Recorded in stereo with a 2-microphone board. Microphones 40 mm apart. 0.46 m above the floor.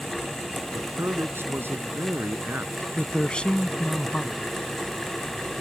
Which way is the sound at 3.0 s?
25° left (ahead or behind).